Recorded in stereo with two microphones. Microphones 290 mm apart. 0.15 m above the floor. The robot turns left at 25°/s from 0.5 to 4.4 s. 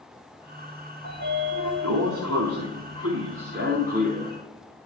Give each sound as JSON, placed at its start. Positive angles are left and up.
{"t": 1.0, "sound": "a sliding door", "azimuth_deg": -80, "distance_m": 2.5}